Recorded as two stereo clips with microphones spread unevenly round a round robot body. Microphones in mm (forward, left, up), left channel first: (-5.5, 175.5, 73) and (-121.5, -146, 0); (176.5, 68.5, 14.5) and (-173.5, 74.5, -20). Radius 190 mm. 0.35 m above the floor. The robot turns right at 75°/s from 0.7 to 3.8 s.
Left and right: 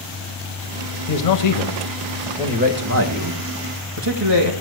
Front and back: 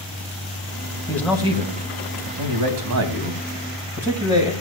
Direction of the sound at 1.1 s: 80° left.